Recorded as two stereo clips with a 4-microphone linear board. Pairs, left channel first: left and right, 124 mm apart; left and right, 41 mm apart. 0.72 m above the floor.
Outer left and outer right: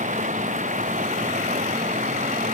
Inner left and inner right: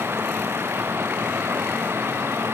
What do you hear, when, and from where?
0.0 s running water: 85° right